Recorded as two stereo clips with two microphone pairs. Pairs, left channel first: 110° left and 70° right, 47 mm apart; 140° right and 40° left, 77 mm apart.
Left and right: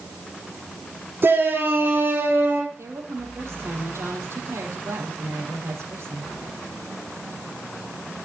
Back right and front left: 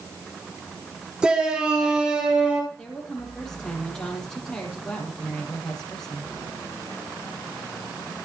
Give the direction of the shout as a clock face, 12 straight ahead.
1 o'clock.